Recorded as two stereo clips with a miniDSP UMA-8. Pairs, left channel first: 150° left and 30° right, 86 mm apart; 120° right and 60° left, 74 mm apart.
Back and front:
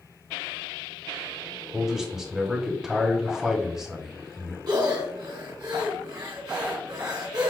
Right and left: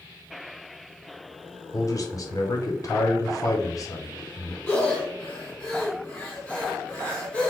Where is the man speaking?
110° right, 1.0 m.